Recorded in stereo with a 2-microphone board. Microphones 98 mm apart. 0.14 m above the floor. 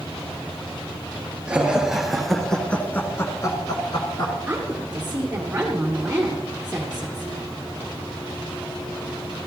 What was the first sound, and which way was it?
Laughter, 10° right (ahead or behind).